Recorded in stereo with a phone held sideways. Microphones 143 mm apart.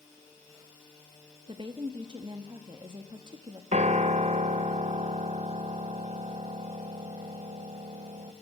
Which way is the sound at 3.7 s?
55° right (ahead or behind).